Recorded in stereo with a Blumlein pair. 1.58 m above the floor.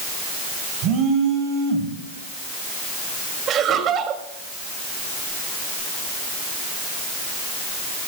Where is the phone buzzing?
35° right, 4 m.